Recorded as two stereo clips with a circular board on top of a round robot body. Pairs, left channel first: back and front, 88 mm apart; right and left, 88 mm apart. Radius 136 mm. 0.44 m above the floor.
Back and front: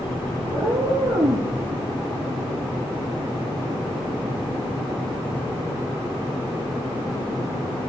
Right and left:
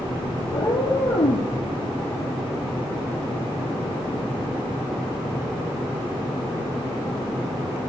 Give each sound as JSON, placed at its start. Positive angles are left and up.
{"t": 0.5, "sound": "a cat meowing", "azimuth_deg": -55, "distance_m": 3.0}